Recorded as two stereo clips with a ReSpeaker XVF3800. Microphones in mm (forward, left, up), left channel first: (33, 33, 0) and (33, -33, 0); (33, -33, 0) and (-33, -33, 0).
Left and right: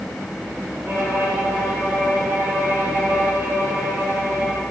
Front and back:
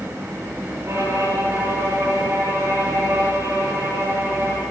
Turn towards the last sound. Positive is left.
turn(degrees=-145)